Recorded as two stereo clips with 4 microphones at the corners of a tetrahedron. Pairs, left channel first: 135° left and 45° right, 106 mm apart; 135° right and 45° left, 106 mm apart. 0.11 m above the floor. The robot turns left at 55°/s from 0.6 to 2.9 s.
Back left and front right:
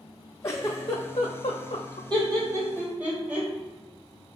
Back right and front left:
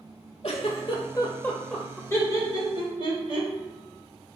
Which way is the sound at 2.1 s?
75° right.